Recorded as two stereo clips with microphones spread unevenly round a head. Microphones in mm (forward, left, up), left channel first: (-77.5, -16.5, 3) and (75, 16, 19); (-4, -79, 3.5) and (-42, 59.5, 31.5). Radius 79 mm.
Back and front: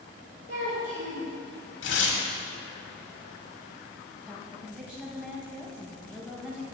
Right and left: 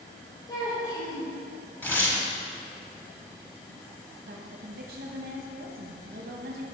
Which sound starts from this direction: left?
A woman speaking, at 4.3 s.